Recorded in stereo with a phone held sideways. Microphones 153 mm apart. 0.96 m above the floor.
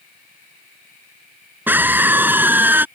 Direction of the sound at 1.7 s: 10° right (ahead or behind).